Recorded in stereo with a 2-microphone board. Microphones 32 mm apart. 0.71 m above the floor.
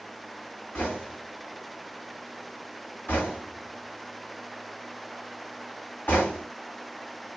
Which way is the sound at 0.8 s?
70° left (ahead or behind).